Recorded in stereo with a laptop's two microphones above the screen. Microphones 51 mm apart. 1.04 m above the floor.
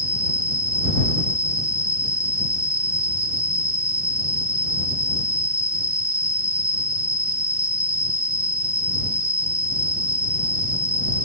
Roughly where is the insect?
Left.